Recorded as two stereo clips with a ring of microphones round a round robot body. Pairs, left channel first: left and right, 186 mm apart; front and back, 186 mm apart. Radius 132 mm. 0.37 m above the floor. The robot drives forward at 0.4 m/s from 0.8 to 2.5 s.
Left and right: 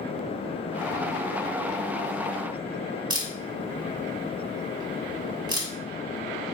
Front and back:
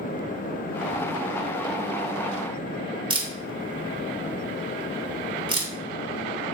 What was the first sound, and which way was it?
A camera shutter, 140° right.